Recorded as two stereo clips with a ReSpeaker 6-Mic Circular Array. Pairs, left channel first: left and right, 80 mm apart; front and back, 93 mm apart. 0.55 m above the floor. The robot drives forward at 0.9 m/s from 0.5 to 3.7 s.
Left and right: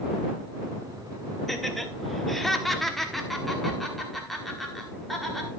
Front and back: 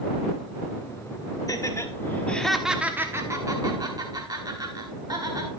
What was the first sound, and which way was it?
Laughter, 5° left.